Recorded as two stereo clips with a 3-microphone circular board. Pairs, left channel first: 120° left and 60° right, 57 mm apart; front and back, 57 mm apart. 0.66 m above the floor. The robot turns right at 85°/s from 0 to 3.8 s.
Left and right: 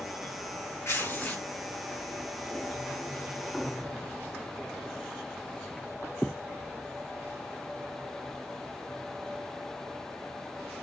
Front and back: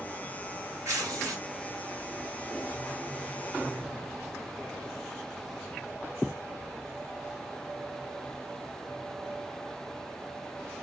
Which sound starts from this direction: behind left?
Tearing paper, at 0.8 s.